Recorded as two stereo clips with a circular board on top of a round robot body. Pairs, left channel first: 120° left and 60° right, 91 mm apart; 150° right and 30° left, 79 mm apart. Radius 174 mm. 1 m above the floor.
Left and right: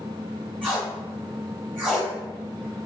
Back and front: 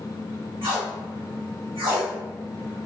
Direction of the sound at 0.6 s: 15° left.